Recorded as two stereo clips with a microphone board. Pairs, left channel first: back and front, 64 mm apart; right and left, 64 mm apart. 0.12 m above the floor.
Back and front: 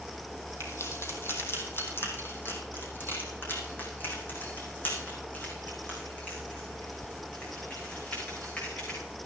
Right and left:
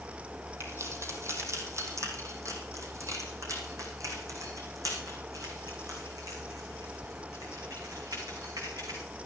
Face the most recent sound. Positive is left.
turn(degrees=115)